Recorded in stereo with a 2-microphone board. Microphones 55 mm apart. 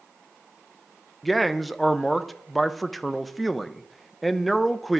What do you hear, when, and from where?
1.2 s a man speaking: centre (ahead or behind), 0.6 m